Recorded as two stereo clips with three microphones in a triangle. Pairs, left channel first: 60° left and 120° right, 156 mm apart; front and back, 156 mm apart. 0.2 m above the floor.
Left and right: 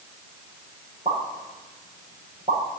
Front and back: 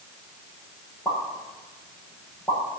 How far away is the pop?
About 6.5 m.